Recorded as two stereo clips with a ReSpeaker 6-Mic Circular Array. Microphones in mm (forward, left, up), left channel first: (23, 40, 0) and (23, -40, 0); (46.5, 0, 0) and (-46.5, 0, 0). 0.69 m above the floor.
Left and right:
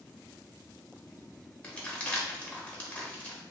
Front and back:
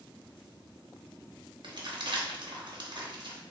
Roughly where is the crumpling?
Behind.